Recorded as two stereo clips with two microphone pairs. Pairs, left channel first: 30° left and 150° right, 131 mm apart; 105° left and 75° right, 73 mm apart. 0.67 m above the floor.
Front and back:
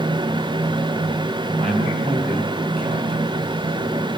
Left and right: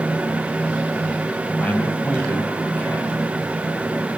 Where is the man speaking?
175° left, 6.5 m.